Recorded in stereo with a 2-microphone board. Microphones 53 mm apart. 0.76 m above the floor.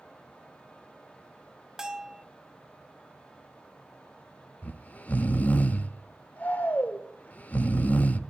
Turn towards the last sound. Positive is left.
turn(degrees=30)  # may be behind; listen again after turning